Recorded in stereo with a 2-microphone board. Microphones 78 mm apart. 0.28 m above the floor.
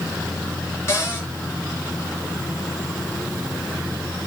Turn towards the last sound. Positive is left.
turn(degrees=30)  # may be behind; listen again after turning